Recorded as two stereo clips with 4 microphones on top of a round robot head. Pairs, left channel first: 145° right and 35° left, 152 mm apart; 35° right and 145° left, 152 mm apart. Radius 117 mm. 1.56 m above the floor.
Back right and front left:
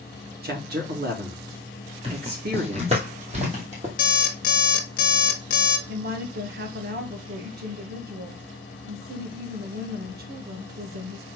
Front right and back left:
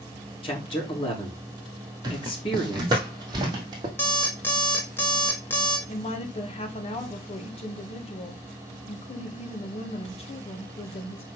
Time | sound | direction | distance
0.4 | a man speaking | 20° left | 3.5 m
2.0 | footsteps | 85° left | 1.9 m
4.0 | an alarm clock | 110° right | 1.1 m
5.9 | a woman speaking | 15° left | 2 m